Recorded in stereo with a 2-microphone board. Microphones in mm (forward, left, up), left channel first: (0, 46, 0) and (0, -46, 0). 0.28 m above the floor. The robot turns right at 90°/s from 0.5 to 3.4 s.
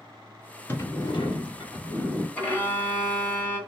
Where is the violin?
35° left, 1.1 m; by 3.6 s 130° left, 1.1 m.